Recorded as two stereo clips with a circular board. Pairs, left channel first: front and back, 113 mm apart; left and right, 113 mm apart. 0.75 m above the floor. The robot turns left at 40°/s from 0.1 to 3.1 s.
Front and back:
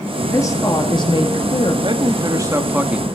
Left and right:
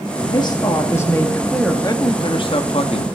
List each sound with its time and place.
0.2 s a woman speaking: 60° left, 1.4 m; by 1.7 s straight ahead, 1.4 m
1.8 s a man speaking: 145° left, 0.8 m; by 3.0 s 100° left, 0.8 m